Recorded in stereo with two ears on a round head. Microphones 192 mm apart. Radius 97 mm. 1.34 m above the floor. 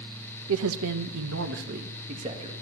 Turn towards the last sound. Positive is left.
turn(degrees=-25)  # may be behind; listen again after turning